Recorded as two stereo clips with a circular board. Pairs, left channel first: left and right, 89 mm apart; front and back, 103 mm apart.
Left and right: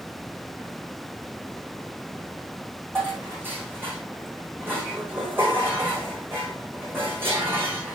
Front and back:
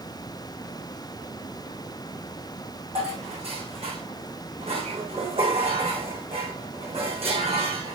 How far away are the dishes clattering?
About 6 m.